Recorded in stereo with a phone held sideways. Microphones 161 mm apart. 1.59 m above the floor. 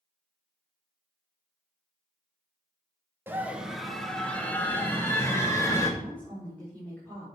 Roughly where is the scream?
Centre.